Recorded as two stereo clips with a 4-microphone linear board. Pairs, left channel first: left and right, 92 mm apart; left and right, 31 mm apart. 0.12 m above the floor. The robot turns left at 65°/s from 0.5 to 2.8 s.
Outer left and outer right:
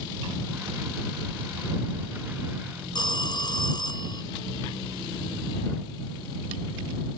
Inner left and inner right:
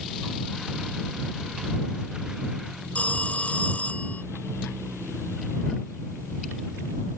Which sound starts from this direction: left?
A phone ringing, at 3.0 s.